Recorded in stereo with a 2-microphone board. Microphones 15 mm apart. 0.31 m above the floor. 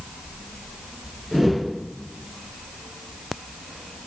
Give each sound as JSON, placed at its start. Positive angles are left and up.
{"t": 1.3, "sound": "a whoosh", "side_deg": 0, "distance_m": 2.5}